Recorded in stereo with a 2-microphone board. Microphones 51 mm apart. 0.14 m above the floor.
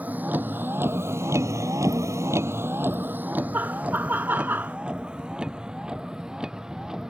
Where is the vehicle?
30° right (ahead or behind); by 7.1 s 10° right (ahead or behind).